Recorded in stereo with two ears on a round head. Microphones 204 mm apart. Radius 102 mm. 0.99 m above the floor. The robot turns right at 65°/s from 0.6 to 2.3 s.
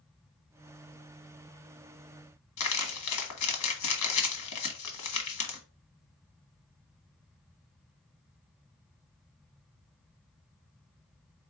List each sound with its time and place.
2.6 s crumpling: 75° left (ahead or behind), 1.3 m